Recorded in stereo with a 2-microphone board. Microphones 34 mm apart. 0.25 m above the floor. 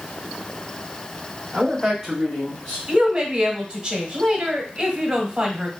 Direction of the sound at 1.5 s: 30° right (ahead or behind).